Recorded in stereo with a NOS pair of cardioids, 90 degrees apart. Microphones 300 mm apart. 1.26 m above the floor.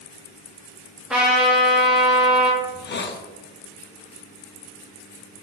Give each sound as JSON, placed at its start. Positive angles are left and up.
{"t": 1.1, "sound": "a trumpet", "azimuth_deg": 0, "distance_m": 1.4}
{"t": 2.6, "sound": "a hiss", "azimuth_deg": 40, "distance_m": 0.6}